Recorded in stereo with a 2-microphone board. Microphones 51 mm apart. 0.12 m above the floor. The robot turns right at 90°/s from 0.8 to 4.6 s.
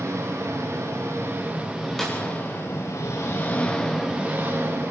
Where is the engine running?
100° right, 8.5 m; by 4.9 s 120° right, 8.5 m.